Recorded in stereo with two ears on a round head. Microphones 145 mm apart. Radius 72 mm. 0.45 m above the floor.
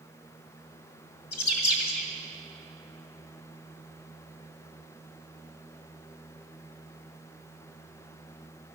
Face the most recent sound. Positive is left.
turn(degrees=65)  # may be behind; listen again after turning